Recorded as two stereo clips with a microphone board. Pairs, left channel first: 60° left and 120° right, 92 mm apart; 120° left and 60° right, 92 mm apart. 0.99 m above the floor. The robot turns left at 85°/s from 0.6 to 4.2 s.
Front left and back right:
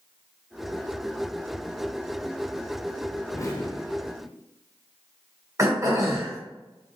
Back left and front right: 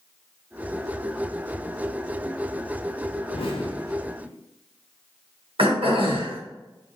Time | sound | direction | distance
3.3 | an explosion | 125° left | 0.9 m
5.6 | throat clearing | 65° right | 1.3 m